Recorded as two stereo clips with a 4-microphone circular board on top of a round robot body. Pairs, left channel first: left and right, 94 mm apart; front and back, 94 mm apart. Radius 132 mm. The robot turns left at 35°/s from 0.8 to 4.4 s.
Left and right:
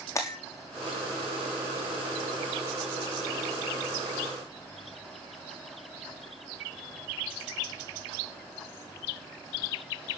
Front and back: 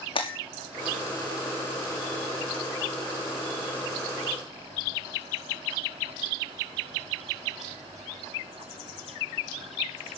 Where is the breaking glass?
30° left, 5.5 m.